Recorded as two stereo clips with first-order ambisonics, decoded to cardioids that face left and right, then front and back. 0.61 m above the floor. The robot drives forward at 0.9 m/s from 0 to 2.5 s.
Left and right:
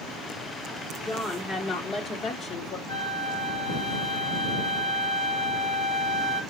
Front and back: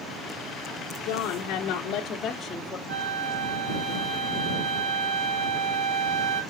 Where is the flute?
175° left, 6 m.